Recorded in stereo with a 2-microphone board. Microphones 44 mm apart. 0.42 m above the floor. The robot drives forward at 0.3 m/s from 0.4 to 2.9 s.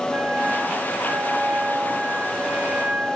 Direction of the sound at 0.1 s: 35° right (ahead or behind).